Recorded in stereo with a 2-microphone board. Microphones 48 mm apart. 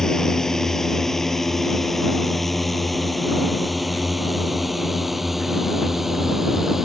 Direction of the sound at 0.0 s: 10° left (ahead or behind).